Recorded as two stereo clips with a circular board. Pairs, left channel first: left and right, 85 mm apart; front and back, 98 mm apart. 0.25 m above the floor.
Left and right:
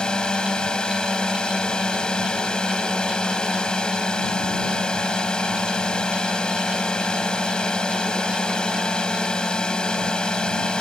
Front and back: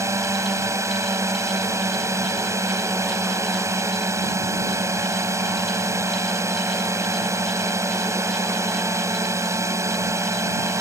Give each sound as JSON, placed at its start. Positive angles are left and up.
{"t": 0.0, "sound": "a drone", "azimuth_deg": 160}